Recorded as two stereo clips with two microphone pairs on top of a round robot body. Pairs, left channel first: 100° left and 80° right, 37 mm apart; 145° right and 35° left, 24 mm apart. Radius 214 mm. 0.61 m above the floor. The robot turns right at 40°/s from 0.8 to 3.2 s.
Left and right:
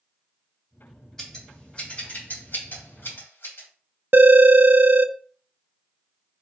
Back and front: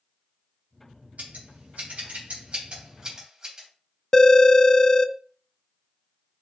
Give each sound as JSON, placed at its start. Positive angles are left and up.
{"t": 1.2, "sound": "scissors", "azimuth_deg": 20, "distance_m": 2.5}
{"t": 4.1, "sound": "a phone ringing", "azimuth_deg": -80, "distance_m": 0.6}